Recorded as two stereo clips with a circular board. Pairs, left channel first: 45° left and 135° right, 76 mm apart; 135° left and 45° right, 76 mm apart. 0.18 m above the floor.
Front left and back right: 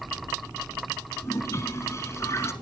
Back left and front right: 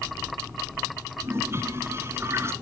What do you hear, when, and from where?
1.2 s a toilet flushing: straight ahead, 1.4 m